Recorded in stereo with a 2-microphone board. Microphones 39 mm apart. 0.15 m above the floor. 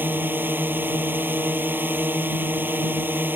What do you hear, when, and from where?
0.0 s a drone: 65° right (ahead or behind)